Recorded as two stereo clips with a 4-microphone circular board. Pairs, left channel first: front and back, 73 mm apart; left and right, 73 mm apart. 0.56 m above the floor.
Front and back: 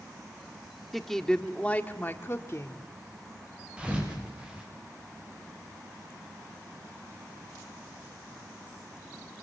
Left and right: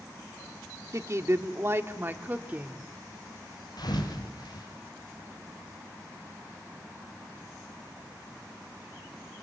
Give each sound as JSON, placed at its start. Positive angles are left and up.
{"t": 0.9, "sound": "a woman speaking", "azimuth_deg": -90, "distance_m": 1.3}
{"t": 3.8, "sound": "a thud", "azimuth_deg": 105, "distance_m": 5.5}